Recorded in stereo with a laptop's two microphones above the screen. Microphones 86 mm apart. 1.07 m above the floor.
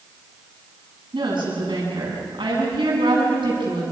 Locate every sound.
1.1 s a woman speaking: 70° right (ahead or behind), 8 m